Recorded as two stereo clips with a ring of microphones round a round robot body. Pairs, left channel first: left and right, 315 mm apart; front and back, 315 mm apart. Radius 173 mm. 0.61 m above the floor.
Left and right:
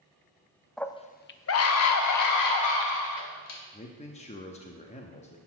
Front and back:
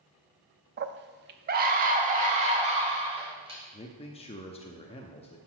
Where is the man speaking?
50° left, 0.7 m.